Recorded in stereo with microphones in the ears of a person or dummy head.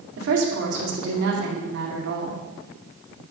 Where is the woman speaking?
70° right (ahead or behind), 2 m.